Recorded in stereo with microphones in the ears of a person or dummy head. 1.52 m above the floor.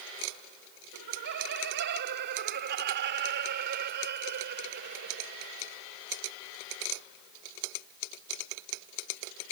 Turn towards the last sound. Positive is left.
turn(degrees=-45)  # may be behind; listen again after turning